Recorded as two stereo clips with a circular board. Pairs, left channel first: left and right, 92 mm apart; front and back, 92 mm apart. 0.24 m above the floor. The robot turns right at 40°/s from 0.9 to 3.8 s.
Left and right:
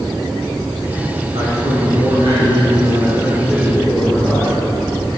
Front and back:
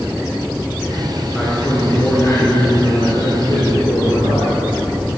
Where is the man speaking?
90° right, 3 m; by 4.5 s 10° left, 3 m.